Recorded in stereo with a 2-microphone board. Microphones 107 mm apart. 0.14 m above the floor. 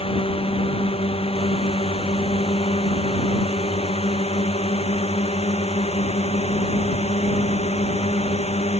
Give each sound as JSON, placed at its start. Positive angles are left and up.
{"t": 0.0, "sound": "a drone", "side_deg": 65}